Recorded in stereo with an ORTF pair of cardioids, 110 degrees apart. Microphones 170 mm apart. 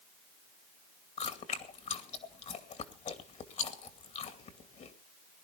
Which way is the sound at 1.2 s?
45° left.